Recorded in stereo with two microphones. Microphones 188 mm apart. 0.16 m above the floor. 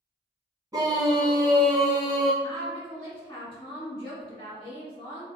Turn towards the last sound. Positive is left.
turn(degrees=30)  # may be behind; listen again after turning